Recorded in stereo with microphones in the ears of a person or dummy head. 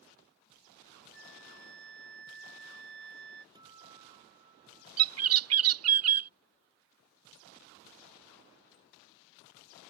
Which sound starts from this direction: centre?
A guitar, at 3.5 s.